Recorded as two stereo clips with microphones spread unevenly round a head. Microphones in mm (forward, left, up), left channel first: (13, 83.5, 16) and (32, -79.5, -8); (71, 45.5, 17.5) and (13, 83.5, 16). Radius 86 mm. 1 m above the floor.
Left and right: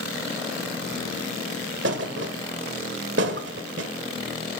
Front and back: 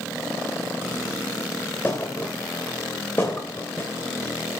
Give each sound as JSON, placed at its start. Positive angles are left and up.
{"t": 1.8, "sound": "a thud", "azimuth_deg": -110, "distance_m": 1.3}